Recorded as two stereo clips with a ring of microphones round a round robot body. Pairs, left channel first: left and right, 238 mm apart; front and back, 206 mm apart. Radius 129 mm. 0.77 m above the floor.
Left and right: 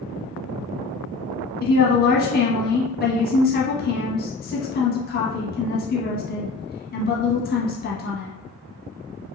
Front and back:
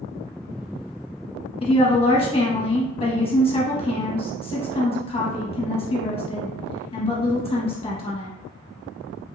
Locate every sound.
1.6 s a woman speaking: 55° left, 1.0 m